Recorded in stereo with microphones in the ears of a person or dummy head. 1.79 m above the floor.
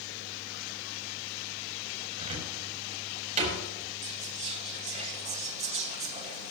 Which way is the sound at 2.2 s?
40° right (ahead or behind).